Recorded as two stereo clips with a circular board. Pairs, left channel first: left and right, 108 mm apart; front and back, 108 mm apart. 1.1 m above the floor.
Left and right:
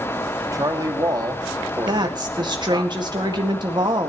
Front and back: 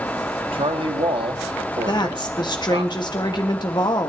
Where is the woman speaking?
45° right, 1.8 m.